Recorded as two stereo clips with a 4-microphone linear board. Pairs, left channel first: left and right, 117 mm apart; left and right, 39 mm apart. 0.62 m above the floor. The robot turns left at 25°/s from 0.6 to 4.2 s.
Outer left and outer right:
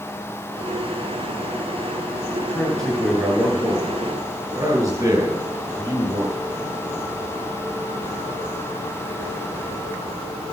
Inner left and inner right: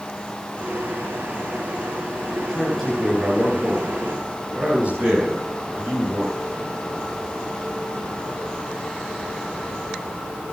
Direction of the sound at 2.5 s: 15° left.